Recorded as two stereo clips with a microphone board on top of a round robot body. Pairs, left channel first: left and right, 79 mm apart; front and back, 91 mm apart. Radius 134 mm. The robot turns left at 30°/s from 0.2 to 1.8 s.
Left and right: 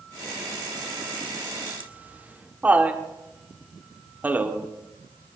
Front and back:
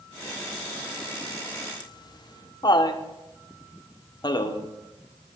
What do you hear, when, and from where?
1.8 s laughter: 25° right, 1.8 m